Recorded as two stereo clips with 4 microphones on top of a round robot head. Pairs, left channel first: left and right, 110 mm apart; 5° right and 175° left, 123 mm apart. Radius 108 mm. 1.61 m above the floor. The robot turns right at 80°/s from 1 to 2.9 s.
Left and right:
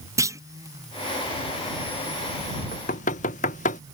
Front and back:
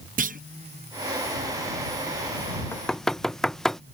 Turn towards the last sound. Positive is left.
turn(degrees=80)